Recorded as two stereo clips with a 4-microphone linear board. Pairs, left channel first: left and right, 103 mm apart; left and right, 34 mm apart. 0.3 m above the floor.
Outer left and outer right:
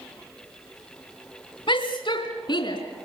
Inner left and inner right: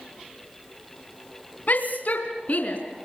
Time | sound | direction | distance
1.7 | a shout | 50° left (ahead or behind) | 2.5 m